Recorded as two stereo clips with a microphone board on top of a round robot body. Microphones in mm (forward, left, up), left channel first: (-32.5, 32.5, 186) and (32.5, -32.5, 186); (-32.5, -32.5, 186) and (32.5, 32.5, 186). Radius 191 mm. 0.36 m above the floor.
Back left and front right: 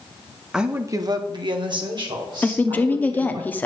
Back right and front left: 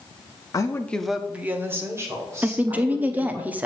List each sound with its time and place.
0.5 s a woman speaking: 125° right, 0.9 m; by 3.4 s 10° right, 4 m
2.4 s a woman speaking: 95° left, 1.0 m